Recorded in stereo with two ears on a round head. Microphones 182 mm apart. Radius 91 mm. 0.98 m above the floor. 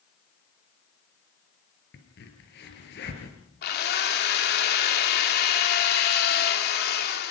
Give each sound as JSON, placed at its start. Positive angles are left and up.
{"t": 1.9, "sound": "a crack", "side_deg": 55, "distance_m": 4.5}
{"t": 3.6, "sound": "a drill", "side_deg": 50, "distance_m": 2.5}